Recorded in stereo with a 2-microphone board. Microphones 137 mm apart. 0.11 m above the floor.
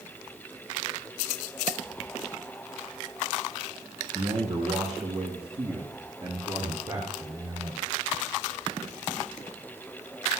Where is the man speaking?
55° right (ahead or behind), 4.5 m; by 7.8 s 40° right (ahead or behind), 7.5 m.